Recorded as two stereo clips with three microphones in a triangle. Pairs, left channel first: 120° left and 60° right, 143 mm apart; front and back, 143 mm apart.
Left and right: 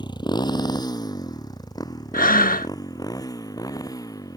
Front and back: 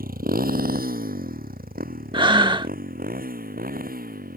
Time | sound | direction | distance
0.0 | a motorcycle | straight behind | ?
2.1 | breathing | 125° left | ?